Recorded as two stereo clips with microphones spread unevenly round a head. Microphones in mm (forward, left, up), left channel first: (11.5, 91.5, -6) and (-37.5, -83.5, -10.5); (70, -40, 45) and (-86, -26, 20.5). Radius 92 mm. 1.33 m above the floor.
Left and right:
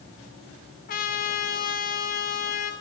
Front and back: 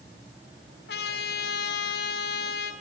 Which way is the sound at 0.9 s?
30° left.